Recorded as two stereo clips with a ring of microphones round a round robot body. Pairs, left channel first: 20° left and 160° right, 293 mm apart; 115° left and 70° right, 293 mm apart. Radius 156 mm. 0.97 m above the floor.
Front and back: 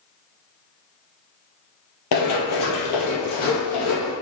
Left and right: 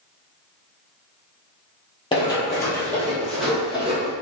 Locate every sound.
2.1 s running footsteps: 40° left, 1.7 m; by 4.1 s 15° left, 2.5 m